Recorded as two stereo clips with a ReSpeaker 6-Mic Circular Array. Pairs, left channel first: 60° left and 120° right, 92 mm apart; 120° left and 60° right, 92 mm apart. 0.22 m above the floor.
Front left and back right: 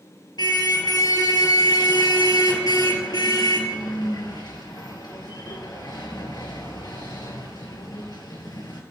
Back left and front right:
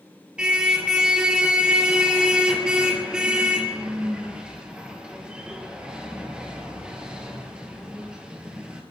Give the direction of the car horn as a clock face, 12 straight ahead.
11 o'clock.